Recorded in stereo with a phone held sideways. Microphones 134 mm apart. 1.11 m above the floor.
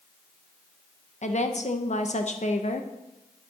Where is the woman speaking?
60° left (ahead or behind), 1.1 m.